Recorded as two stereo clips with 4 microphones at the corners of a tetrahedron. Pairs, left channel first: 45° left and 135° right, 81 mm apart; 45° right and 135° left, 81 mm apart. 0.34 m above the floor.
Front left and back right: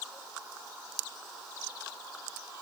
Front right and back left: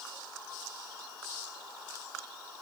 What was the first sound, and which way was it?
Only background noise.